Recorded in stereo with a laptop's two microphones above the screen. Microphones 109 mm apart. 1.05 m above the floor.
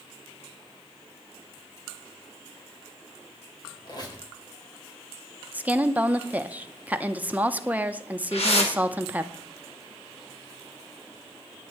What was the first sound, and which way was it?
A squeak, 40° left (ahead or behind).